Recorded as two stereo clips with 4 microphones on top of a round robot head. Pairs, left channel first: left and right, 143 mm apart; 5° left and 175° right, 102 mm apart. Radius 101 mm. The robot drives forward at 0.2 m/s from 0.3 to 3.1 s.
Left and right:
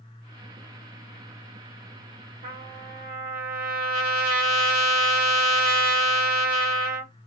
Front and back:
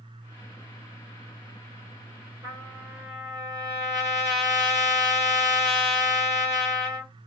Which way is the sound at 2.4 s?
110° right.